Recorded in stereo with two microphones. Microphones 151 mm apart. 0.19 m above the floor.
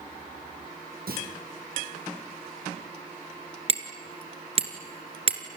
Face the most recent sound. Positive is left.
turn(degrees=-40)  # may be behind; listen again after turning